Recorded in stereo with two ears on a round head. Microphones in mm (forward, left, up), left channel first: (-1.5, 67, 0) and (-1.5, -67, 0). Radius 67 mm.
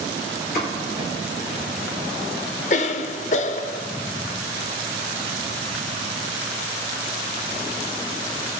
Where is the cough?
50° left (ahead or behind), 0.6 m.